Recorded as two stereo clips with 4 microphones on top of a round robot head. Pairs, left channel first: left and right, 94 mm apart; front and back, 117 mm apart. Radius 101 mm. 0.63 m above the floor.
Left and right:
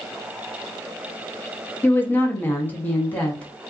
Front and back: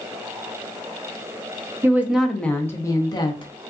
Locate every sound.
1.8 s a woman speaking: 130° left, 0.8 m; by 3.5 s 20° left, 1.0 m